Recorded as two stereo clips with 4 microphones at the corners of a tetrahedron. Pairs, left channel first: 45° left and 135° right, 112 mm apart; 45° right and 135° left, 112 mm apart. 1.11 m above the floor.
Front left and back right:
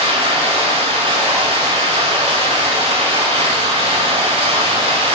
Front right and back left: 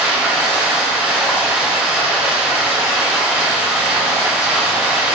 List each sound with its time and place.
0.0 s running water: 145° right, 4.5 m